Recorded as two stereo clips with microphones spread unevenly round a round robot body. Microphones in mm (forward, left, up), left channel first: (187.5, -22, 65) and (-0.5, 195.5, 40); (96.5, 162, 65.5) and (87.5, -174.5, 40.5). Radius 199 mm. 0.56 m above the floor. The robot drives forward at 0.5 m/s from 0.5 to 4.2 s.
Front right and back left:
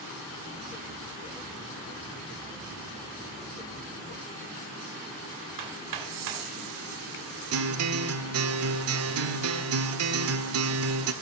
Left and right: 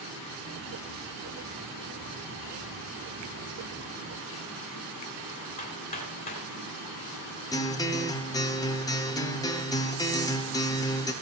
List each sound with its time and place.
5.6 s hammering: 165° left, 2 m
7.5 s a guitar: 170° left, 1.0 m